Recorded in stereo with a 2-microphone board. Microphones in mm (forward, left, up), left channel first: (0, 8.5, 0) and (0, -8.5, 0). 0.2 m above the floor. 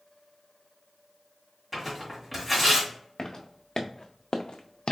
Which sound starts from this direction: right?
Tearing paper, at 1.7 s.